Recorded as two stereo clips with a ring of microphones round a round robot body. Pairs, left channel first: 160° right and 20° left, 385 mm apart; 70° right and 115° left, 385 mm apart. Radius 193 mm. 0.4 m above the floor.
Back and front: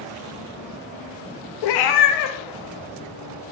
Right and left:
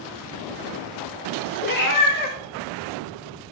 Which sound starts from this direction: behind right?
A cat meowing, at 1.6 s.